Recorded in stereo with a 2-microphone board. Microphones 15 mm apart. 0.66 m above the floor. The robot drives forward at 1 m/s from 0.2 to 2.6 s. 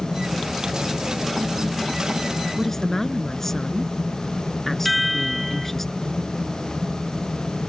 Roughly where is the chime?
Centre.